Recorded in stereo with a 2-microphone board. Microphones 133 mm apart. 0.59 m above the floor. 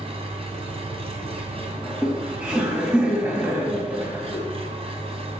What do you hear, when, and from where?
0.0 s an engine running: 45° right (ahead or behind), 3 m
1.8 s laughter: 10° right (ahead or behind), 3 m